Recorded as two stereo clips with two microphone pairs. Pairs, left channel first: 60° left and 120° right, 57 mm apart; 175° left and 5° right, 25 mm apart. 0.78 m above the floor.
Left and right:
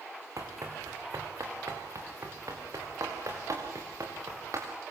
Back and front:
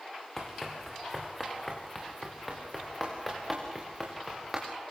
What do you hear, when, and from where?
0.4 s running footsteps: 115° right, 4.5 m; by 4.7 s 95° right, 7.5 m